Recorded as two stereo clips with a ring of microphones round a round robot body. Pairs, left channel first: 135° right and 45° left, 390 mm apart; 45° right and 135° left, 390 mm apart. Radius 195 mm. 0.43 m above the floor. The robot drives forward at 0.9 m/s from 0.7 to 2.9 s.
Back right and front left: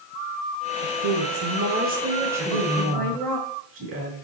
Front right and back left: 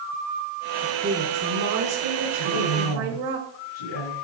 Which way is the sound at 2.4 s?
10° right.